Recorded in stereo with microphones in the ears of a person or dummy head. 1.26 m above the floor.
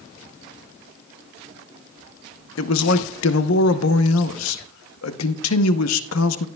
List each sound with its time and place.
2.6 s a man speaking: 75° left (ahead or behind), 0.9 m